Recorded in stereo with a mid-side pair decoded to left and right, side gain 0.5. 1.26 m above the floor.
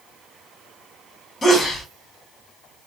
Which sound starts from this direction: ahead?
A sneeze, at 1.4 s.